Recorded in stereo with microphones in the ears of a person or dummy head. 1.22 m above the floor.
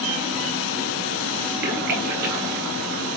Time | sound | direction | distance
1.6 | a splash | 55° right (ahead or behind) | 1.3 m